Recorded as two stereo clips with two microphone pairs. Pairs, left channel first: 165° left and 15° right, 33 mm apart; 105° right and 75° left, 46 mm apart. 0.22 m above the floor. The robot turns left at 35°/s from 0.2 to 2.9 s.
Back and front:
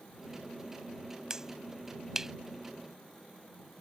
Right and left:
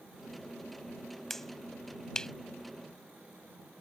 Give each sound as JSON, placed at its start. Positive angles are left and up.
{"t": 1.3, "sound": "a finger snap", "azimuth_deg": -35}